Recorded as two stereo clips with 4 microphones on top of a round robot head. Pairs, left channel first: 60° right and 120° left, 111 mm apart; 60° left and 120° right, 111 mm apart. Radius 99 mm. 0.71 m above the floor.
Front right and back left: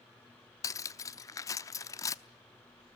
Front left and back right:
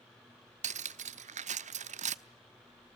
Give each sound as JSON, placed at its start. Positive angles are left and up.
{"t": 0.6, "sound": "cutlery clinking", "azimuth_deg": -120, "distance_m": 0.8}